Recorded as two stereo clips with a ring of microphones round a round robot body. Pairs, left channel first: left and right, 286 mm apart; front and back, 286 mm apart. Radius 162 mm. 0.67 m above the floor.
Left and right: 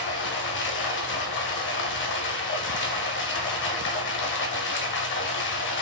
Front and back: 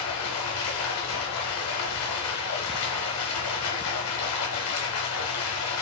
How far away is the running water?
About 0.8 m.